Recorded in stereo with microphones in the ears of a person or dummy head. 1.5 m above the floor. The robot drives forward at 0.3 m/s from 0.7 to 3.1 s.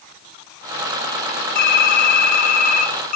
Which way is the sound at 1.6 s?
60° left (ahead or behind).